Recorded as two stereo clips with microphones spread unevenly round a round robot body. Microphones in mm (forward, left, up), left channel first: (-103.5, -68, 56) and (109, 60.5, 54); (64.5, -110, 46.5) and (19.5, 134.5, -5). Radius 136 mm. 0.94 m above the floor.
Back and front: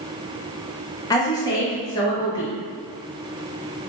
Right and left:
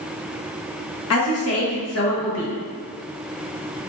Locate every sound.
1.1 s a woman speaking: 80° right, 1.0 m